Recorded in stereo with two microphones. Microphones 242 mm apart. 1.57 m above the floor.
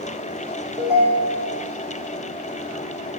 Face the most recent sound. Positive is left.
turn(degrees=-5)  # may be behind; listen again after turning